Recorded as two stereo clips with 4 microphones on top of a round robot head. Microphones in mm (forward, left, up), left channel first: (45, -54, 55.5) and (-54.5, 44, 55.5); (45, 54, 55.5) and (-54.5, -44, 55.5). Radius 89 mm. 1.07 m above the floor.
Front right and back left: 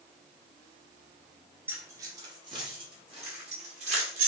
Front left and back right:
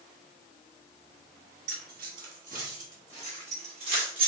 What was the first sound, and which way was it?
Keys jangling, 150° right.